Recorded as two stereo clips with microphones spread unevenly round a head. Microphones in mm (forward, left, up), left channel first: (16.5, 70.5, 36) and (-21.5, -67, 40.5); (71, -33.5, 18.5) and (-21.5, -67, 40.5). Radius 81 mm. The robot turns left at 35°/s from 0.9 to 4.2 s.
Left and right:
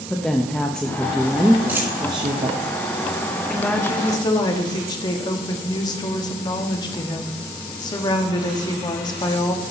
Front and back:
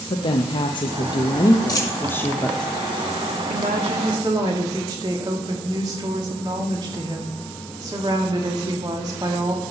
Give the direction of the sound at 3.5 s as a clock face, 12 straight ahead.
7 o'clock.